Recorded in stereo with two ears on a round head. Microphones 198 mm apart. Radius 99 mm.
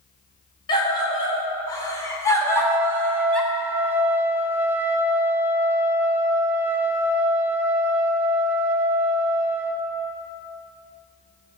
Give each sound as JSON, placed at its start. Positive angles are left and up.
{"t": 0.7, "sound": "a scream", "side_deg": 20, "distance_m": 3.5}
{"t": 2.4, "sound": "a trumpet", "side_deg": -10, "distance_m": 0.6}